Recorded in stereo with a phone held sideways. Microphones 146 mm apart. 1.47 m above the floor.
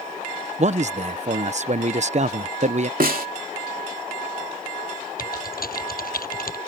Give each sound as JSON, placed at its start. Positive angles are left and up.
{"t": 0.6, "sound": "a man speaking", "side_deg": -50}
{"t": 3.0, "sound": "a snare drum", "side_deg": -80}
{"t": 5.2, "sound": "typing on a keyboard", "side_deg": 85}